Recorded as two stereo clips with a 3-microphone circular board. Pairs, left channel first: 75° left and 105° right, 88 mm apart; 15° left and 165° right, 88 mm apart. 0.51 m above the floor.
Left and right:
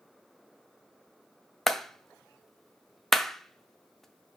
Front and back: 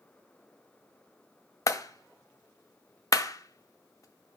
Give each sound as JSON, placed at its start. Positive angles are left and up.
{"t": 1.7, "sound": "a clap", "azimuth_deg": -10, "distance_m": 0.6}